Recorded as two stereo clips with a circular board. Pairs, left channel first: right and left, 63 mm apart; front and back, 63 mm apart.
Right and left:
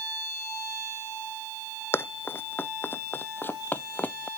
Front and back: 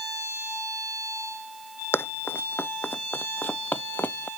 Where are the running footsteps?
45° right; by 4.3 s 40° right.